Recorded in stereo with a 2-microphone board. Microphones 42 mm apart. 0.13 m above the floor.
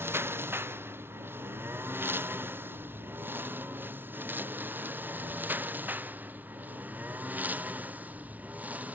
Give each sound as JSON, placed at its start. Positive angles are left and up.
{"t": 0.0, "sound": "a lawn mower", "side_deg": -70}